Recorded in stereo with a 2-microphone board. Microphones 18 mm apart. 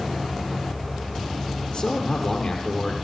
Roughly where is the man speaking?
Left.